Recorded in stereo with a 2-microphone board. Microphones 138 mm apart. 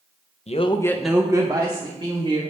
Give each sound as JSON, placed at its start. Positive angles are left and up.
{"t": 0.5, "sound": "a man speaking", "side_deg": 50, "distance_m": 0.6}